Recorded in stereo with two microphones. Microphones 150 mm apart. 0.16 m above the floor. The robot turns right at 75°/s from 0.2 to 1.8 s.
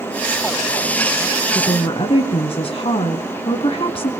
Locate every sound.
1.6 s a woman speaking: 30° left (ahead or behind), 1.3 m; by 4.1 s 35° left (ahead or behind), 1.3 m